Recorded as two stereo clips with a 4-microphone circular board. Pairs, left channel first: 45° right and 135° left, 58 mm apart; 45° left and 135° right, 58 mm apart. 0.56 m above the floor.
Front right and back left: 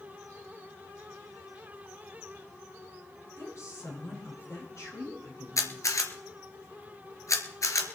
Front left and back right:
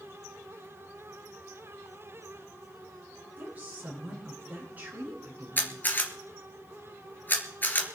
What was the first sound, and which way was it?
A woman speaking, 75° right.